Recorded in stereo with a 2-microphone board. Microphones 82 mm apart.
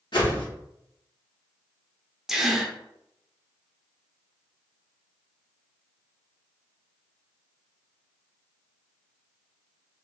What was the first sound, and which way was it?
A whoosh, 75° left (ahead or behind).